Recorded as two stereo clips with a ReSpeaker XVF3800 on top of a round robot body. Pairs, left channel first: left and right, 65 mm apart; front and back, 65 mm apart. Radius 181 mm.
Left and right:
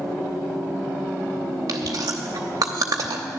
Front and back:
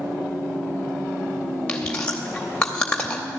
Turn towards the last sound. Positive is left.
turn(degrees=-75)